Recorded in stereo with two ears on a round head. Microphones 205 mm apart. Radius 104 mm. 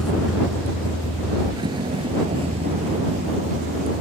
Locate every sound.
0.0 s a vehicle: 5° left (ahead or behind); by 4.0 s 30° right (ahead or behind)